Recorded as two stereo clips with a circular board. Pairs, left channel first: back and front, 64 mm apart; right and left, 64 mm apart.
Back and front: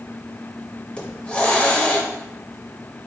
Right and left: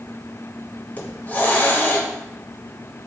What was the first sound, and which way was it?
A hiss, 120° right.